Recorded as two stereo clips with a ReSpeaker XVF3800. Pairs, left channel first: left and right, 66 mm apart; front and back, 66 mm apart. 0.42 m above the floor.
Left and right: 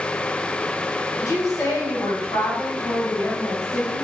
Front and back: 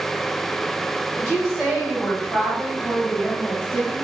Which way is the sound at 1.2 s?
80° left.